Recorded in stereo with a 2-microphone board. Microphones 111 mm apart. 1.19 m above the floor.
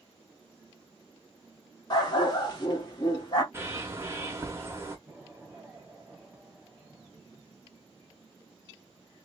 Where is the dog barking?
40° left (ahead or behind), 1.0 m.